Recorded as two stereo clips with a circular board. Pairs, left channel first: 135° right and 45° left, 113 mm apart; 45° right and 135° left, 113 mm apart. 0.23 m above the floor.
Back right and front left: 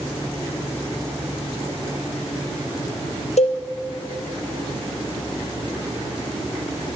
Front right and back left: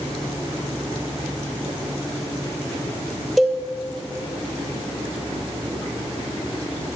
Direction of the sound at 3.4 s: 135° right.